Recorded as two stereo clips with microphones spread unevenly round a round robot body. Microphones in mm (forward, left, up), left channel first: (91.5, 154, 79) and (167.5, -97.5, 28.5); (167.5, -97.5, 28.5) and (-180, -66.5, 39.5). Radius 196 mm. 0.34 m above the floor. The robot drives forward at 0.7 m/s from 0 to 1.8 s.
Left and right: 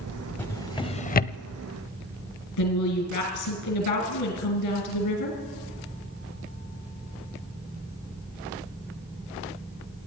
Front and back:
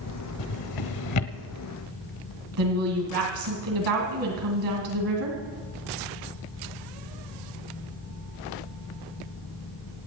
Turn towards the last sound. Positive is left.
turn(degrees=140)